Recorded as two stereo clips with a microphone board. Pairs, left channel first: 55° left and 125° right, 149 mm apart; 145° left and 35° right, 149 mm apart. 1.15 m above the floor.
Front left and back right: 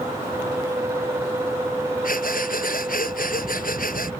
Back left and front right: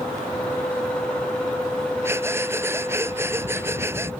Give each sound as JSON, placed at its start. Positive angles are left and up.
{"t": 2.0, "sound": "breathing", "azimuth_deg": 40}